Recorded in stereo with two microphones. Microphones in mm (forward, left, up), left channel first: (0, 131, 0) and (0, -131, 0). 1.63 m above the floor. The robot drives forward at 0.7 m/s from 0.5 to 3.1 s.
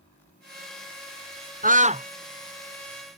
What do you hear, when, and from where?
1.6 s a scream: 30° right (ahead or behind); by 2.1 s 25° right (ahead or behind)